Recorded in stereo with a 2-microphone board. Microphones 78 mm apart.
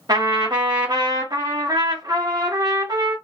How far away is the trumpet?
About 1.1 m.